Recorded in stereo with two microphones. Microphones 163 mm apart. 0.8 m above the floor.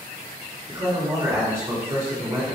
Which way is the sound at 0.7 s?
20° right (ahead or behind).